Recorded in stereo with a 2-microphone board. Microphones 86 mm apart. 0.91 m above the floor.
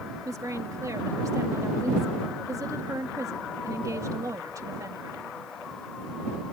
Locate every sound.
0.2 s a woman speaking: 40° right (ahead or behind)